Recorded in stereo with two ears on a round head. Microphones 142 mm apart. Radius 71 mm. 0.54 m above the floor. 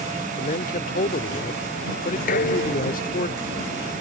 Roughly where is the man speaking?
Left.